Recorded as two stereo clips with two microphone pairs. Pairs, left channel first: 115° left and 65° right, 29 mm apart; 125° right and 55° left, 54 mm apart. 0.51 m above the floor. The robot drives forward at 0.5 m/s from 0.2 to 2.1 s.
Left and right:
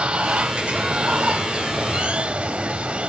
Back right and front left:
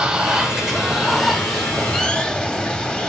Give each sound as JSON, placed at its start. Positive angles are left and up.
{"t": 0.0, "sound": "running water", "azimuth_deg": -25, "distance_m": 1.7}